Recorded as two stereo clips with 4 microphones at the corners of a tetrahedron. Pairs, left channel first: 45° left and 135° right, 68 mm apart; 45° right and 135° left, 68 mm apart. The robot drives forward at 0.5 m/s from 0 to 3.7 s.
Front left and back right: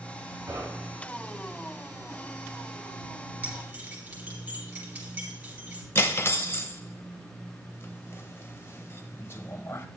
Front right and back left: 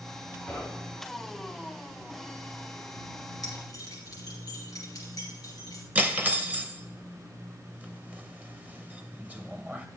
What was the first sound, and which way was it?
Knocking, 120° right.